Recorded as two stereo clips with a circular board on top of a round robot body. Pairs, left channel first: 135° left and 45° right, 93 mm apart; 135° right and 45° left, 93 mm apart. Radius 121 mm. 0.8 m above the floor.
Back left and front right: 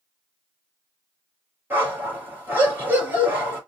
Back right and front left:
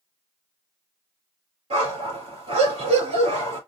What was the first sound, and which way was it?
A dog barking, 25° left.